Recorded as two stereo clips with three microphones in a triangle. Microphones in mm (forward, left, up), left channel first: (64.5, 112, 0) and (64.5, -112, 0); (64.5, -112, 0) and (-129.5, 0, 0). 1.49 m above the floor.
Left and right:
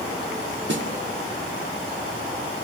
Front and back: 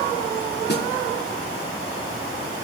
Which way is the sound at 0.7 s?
65° right.